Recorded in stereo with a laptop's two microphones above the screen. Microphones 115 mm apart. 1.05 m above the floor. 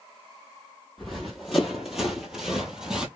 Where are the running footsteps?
Centre (ahead or behind), 1.3 m; by 3.1 s 5° right (ahead or behind), 1.1 m.